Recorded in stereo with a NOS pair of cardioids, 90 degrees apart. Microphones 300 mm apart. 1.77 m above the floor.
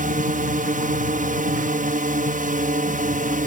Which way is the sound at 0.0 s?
30° right.